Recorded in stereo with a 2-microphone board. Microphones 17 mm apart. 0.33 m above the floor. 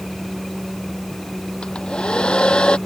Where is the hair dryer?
85° left.